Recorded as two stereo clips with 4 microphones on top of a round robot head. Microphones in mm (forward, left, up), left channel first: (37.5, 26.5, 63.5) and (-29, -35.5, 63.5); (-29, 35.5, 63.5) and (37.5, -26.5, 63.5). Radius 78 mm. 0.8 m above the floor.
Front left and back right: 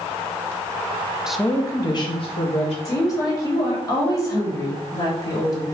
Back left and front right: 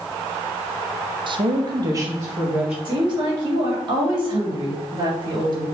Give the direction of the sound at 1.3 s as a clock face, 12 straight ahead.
2 o'clock.